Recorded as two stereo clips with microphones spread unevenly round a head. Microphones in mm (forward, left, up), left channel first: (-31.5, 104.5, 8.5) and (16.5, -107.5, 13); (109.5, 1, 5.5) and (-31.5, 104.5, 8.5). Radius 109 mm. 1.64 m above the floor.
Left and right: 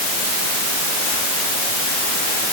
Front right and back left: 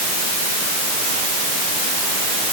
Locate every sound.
Only background noise.